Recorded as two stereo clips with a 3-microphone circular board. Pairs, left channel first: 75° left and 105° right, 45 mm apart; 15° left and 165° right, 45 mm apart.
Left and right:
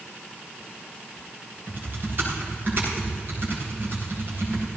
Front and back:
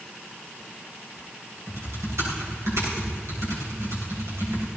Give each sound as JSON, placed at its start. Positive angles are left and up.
{"t": 1.7, "sound": "typing on a keyboard", "azimuth_deg": -150, "distance_m": 6.5}